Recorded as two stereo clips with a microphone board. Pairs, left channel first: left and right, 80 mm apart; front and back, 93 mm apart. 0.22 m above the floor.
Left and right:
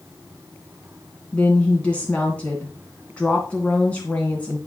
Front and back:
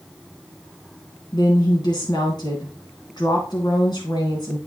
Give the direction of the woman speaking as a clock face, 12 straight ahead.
11 o'clock.